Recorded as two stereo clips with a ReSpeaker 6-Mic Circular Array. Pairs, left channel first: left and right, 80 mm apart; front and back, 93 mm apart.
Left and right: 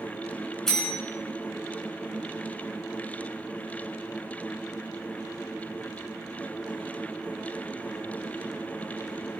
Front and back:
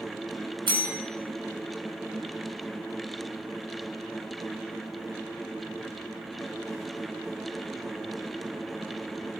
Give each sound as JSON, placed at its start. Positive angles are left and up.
{"t": 0.7, "sound": "a bell", "azimuth_deg": 175, "distance_m": 5.0}